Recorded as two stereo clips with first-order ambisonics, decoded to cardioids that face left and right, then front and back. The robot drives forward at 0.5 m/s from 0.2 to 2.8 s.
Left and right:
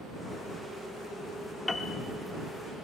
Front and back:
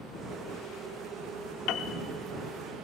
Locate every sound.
1.7 s a piano: 15° left, 0.6 m; by 2.0 s 20° left, 0.5 m